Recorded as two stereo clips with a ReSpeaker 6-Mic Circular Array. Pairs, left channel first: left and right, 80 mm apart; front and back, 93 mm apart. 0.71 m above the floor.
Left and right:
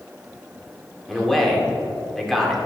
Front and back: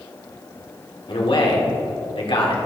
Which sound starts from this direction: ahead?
A man speaking, at 1.1 s.